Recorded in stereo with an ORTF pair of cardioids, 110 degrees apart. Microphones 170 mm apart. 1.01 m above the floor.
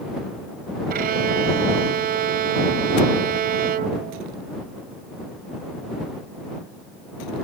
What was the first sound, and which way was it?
A violin, 60° right.